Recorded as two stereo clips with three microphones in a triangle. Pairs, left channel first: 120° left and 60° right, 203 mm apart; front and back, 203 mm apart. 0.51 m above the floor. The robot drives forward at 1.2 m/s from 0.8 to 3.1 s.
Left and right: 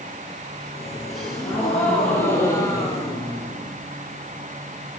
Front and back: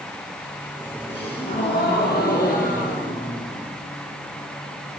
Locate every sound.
1.1 s a gasp: 30° left, 5.5 m; by 3.7 s 50° left, 4 m